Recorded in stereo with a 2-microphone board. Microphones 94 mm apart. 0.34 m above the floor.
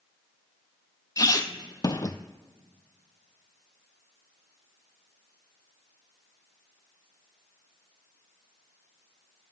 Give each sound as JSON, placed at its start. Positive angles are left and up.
{"t": 1.2, "sound": "a squeak", "side_deg": 40, "distance_m": 0.5}